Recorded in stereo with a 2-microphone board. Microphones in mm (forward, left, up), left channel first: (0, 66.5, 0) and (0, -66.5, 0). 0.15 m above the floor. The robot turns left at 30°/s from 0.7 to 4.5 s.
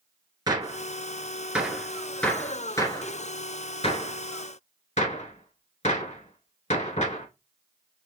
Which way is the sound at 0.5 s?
30° right (ahead or behind).